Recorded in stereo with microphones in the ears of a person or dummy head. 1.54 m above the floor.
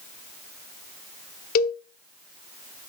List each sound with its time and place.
1.6 s a cowbell: 55° left (ahead or behind), 1.3 m